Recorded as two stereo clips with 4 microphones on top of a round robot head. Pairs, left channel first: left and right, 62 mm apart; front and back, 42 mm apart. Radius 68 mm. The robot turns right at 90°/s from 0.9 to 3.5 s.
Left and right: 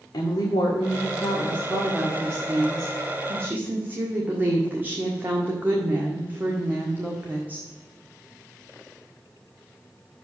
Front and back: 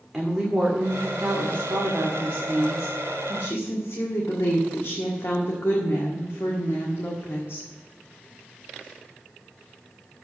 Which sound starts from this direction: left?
A woman speaking, at 0.1 s.